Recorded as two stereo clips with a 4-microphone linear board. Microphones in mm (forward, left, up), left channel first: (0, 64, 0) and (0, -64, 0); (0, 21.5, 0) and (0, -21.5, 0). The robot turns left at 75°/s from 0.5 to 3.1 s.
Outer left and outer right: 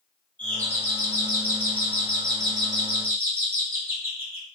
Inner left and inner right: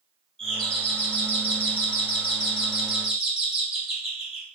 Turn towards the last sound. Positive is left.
turn(degrees=-20)  # may be behind; listen again after turning